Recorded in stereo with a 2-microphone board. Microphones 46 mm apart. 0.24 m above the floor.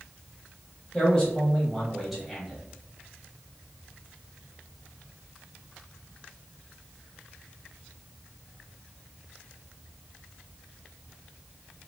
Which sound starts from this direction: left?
A man speaking, at 0.9 s.